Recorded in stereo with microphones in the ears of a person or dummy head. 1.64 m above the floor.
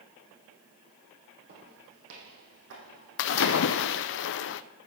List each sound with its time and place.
1.5 s footsteps: 65° right (ahead or behind), 4 m
3.2 s a splash: 55° left (ahead or behind), 0.7 m